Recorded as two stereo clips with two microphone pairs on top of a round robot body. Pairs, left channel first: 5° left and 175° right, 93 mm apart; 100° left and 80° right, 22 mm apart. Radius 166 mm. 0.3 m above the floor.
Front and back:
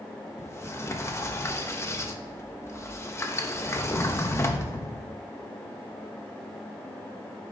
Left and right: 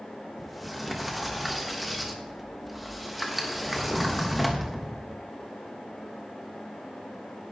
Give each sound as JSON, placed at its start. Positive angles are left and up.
{"t": 0.4, "sound": "a sliding door", "azimuth_deg": 10, "distance_m": 1.4}